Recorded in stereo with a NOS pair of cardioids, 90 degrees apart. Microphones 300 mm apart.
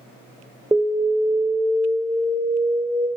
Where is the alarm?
10° right, 0.7 m.